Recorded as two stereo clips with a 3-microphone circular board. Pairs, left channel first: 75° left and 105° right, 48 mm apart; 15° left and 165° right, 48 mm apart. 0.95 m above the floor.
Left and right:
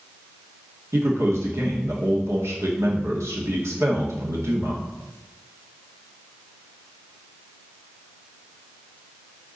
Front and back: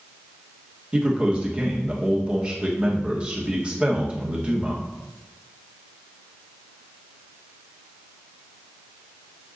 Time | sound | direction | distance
0.9 | a man speaking | 100° right | 2.0 m